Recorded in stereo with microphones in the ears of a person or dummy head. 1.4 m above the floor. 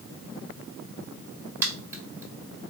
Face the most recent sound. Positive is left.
turn(degrees=-20)  # may be behind; listen again after turning